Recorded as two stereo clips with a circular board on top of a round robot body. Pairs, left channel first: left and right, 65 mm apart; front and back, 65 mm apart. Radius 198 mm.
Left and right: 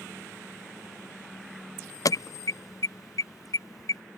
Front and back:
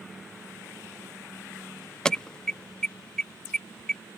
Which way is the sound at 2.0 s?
80° left.